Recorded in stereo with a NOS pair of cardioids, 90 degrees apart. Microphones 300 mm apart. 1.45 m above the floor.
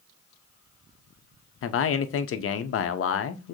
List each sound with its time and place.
1.6 s a man speaking: 45° left, 0.7 m